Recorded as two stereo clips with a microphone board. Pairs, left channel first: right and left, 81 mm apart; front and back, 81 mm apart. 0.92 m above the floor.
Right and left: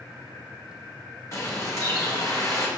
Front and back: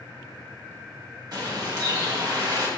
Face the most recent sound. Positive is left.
turn(degrees=-145)